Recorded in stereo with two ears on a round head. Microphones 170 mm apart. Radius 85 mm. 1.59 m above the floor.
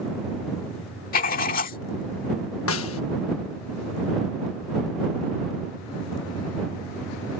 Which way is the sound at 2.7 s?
85° left.